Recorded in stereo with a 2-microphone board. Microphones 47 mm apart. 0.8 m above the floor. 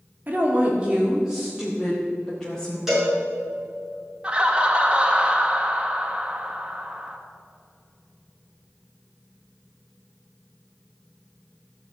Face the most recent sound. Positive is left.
turn(degrees=-20)  # may be behind; listen again after turning